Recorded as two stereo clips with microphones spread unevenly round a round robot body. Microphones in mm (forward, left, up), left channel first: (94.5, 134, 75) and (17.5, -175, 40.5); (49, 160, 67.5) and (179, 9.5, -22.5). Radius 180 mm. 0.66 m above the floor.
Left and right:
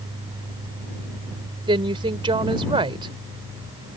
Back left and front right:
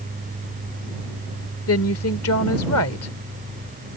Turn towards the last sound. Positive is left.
turn(degrees=180)